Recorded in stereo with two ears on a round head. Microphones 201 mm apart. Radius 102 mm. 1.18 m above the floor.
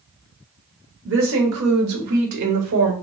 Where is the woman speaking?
50° right (ahead or behind), 1.1 m; by 2.9 s 70° right (ahead or behind), 1.0 m.